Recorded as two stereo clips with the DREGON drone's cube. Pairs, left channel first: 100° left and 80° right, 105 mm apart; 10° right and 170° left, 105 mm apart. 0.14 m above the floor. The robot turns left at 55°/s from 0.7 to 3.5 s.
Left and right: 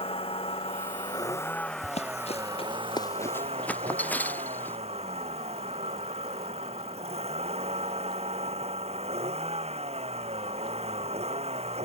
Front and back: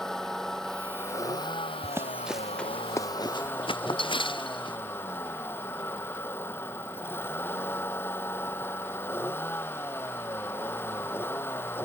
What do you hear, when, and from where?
0.0 s a vehicle: 75° left; by 11.8 s 80° right
1.8 s running footsteps: 110° left; by 4.8 s 25° left